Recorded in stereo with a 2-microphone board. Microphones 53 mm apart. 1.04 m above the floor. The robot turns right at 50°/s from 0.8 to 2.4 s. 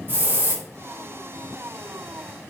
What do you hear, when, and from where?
0.1 s a hiss: 35° right (ahead or behind), 0.7 m